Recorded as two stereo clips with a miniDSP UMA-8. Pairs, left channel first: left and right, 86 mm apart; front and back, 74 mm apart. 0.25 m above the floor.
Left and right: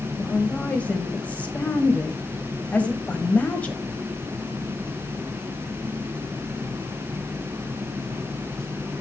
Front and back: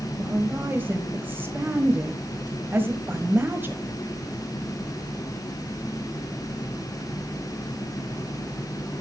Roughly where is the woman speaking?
Behind left.